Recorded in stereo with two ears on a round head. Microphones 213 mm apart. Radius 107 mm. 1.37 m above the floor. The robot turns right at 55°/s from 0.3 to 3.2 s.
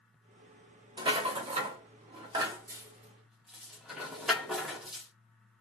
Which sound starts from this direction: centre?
A rattle, at 1.0 s.